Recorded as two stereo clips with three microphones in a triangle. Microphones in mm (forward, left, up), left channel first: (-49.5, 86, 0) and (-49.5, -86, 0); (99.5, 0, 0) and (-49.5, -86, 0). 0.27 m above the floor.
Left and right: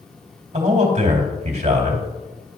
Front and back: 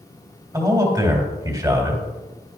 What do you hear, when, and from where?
0.5 s a man speaking: 90° right, 2 m